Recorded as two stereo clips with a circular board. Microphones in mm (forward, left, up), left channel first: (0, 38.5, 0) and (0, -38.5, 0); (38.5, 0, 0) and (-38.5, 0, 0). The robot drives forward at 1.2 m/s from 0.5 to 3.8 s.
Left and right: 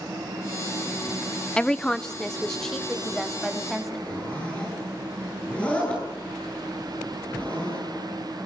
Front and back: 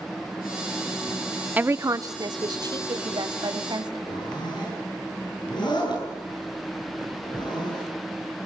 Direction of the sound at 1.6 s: 150° left.